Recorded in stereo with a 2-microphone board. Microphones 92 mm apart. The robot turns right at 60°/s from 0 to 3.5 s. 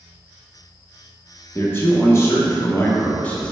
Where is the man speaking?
45° left, 0.6 m; by 3.5 s 165° left, 0.6 m.